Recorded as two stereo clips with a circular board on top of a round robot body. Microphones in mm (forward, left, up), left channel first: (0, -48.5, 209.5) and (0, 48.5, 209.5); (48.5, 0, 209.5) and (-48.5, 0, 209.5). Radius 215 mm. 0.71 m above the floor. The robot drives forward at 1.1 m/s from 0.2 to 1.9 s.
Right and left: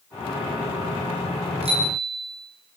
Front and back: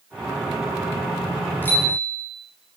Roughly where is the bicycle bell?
Left.